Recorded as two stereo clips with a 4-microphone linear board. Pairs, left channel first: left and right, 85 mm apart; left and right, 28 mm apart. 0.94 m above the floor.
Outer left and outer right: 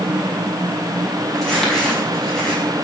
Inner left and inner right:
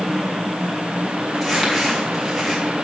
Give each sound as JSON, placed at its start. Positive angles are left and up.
{"t": 1.4, "sound": "crumpling", "side_deg": 5, "distance_m": 5.5}